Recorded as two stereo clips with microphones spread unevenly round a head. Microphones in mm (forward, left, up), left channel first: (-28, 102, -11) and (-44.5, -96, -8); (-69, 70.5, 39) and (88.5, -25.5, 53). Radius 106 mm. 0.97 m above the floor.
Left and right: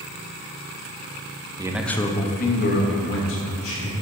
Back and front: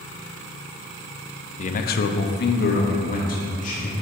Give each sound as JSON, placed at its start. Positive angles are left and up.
{"t": 1.6, "sound": "a man speaking", "azimuth_deg": -165, "distance_m": 0.5}